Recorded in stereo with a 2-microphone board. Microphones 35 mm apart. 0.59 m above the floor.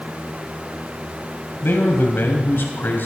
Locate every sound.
1.6 s a man speaking: 70° left (ahead or behind), 3.5 m